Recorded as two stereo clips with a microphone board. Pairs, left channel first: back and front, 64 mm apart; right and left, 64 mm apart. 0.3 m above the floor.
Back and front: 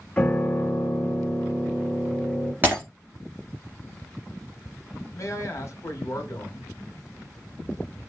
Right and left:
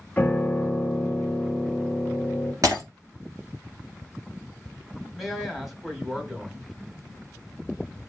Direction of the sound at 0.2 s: 125° right.